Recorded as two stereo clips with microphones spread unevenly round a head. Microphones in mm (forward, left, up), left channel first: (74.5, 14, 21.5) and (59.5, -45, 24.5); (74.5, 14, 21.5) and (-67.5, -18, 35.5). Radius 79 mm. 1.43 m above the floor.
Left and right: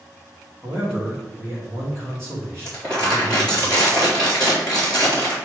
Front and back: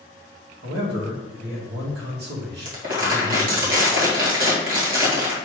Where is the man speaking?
175° left, 2.5 m.